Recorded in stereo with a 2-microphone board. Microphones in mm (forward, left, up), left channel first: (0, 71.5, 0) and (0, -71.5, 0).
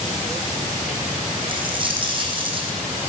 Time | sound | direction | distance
1.5 | a dropped coin | 35° right (ahead or behind) | 2.5 m